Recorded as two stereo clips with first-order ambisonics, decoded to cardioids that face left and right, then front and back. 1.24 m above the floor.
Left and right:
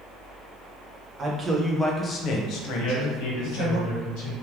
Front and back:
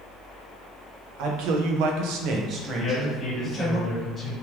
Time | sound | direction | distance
1.2 | a man speaking | 160° right | 0.8 m
2.8 | a man speaking | 75° left | 1.8 m